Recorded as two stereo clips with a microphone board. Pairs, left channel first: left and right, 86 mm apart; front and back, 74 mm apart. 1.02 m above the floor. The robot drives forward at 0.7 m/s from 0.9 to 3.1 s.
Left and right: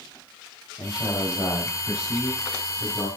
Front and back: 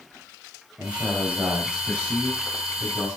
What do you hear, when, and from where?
0.8 s a man speaking: 110° left, 4.5 m; by 3.1 s 130° left, 5 m